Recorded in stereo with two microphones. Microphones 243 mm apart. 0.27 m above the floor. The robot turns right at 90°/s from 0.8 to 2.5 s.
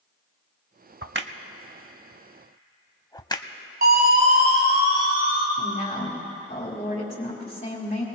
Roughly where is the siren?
Right.